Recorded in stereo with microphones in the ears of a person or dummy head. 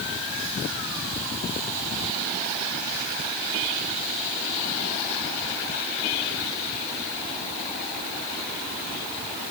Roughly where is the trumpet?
I don't hear a trumpet.